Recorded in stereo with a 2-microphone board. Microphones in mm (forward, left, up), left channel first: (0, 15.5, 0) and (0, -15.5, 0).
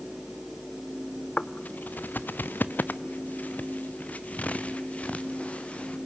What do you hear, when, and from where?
1.4 s footsteps: 45° left (ahead or behind), 1.0 m; by 6.0 s 40° left (ahead or behind), 3 m